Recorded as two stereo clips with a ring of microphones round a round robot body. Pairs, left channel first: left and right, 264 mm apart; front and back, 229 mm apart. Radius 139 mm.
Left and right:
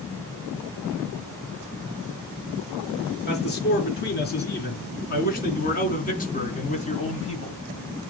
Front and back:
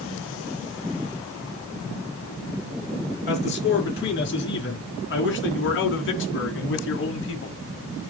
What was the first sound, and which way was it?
A man speaking, 40° left.